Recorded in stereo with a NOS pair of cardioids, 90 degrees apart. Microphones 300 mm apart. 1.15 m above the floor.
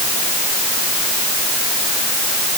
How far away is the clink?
No clink in this recording.